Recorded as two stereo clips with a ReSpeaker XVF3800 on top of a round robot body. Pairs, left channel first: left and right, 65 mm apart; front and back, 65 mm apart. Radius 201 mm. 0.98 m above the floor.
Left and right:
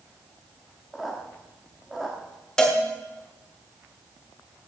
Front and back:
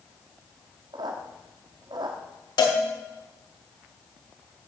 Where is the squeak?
175° right, 1.2 m.